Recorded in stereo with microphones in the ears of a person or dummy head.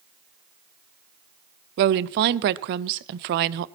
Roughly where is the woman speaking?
Right.